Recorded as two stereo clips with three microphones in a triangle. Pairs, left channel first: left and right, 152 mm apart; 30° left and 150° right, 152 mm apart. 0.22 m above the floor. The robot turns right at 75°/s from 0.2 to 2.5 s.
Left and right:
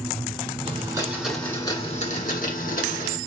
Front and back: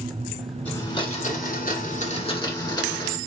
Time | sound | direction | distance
0.7 | a blender | 50° right | 1.8 m